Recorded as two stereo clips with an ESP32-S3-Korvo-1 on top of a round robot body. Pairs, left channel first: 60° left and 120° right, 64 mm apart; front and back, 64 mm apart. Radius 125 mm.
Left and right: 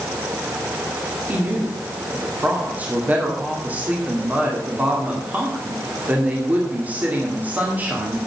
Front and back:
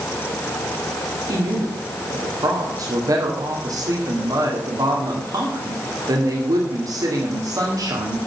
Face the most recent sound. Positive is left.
turn(degrees=175)